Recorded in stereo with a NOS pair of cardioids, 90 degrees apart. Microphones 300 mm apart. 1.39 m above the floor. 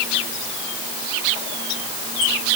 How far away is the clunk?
No clunk in this recording.